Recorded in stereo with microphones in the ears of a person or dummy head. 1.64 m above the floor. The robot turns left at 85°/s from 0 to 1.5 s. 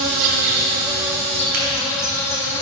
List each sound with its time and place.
0.0 s an insect: 70° right, 2 m; by 2.6 s 160° left, 2 m
1.5 s a crack: 50° right (ahead or behind), 4 m